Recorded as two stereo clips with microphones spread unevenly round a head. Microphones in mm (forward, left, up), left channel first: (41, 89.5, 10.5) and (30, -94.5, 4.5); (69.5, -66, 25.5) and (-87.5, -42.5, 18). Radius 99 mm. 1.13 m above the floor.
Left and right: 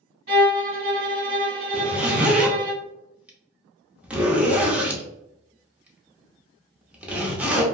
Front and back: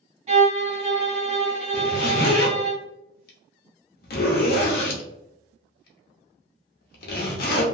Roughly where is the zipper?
Ahead.